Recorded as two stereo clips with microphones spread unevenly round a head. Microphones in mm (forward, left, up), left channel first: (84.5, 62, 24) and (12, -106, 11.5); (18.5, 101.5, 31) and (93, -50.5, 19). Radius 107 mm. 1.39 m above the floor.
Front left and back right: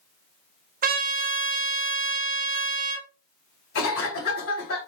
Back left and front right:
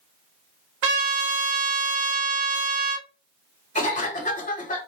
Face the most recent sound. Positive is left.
turn(degrees=70)